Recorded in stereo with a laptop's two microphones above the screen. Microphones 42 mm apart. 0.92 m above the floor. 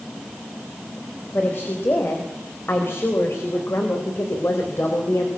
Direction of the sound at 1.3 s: 55° left (ahead or behind).